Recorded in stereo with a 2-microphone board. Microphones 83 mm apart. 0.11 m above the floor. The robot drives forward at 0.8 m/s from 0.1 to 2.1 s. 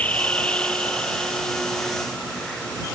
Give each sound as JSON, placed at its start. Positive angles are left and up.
{"t": 0.0, "sound": "an insect", "side_deg": 15}